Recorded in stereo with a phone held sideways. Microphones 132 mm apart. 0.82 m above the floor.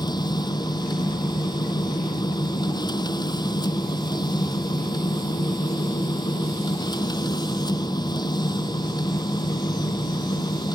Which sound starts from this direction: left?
A machine running, at 0.0 s.